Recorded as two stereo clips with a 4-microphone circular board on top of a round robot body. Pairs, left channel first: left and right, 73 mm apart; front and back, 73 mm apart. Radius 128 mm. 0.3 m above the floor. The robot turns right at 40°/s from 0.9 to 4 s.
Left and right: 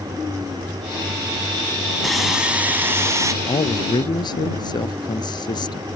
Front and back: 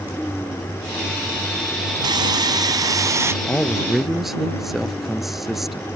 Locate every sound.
2.0 s sawing: straight behind; by 3.3 s 130° right
3.4 s a man speaking: 70° left; by 5.9 s 95° left